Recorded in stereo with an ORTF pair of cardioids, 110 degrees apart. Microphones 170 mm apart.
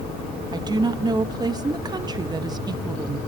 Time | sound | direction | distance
0.5 | a woman speaking | 25° right | 1.1 m